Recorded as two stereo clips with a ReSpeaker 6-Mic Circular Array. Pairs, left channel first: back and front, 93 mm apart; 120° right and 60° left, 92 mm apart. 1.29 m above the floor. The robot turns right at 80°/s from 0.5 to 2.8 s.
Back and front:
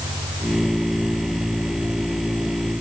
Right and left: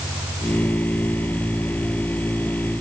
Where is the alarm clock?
No alarm clock in this recording.